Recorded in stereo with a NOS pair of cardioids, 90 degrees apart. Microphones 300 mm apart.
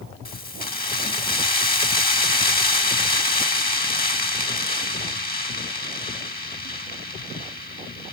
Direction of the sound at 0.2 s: 30° left.